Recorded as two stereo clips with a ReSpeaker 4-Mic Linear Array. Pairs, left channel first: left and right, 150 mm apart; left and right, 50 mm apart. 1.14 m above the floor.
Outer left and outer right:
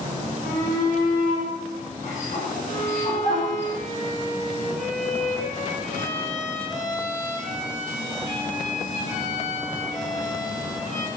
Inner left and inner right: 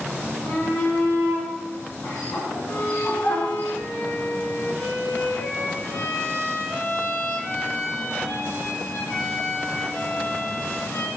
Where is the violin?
55° left (ahead or behind), 6 m.